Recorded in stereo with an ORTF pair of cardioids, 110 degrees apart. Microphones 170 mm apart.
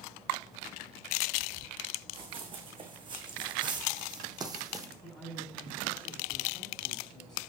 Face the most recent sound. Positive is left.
turn(degrees=5)